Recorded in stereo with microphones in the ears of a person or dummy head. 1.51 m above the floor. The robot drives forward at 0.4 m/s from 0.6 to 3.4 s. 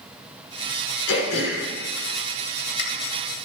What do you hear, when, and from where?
1.1 s throat clearing: 65° left (ahead or behind), 5 m; by 2.8 s 55° left (ahead or behind), 5 m